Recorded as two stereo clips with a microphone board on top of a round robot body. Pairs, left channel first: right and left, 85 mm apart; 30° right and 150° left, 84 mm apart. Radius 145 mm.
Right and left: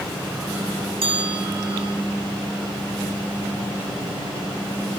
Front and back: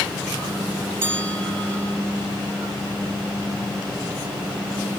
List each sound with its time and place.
1.0 s a bell: 85° left, 8.5 m